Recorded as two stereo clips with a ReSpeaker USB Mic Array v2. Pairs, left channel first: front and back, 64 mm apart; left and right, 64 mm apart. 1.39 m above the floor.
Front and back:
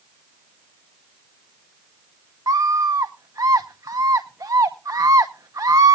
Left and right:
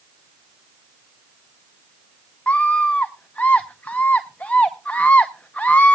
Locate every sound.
2.5 s a scream: 160° left, 0.8 m